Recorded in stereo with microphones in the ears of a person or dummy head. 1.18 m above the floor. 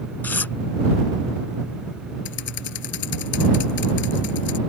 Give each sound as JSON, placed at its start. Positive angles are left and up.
{"t": 0.2, "sound": "tearing paper", "side_deg": 10}
{"t": 2.2, "sound": "typing on a keyboard", "side_deg": 65}